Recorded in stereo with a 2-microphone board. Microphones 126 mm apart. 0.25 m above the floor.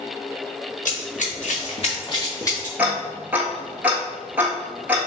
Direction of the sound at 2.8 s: 15° right (ahead or behind).